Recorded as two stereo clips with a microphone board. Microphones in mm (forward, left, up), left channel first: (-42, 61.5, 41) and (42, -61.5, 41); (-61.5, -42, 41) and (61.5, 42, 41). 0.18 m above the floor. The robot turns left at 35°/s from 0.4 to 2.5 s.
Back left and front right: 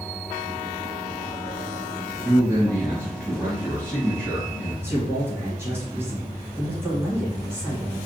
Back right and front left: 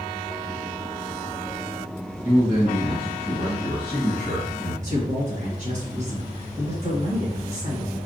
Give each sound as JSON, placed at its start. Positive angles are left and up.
{"t": 2.2, "sound": "a man speaking", "azimuth_deg": 20, "distance_m": 1.3}
{"t": 4.8, "sound": "a man speaking", "azimuth_deg": 15, "distance_m": 1.9}